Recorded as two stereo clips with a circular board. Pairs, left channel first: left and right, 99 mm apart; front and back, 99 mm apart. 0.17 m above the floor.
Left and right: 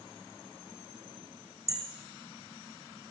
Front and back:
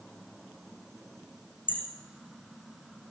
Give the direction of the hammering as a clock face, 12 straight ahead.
1 o'clock.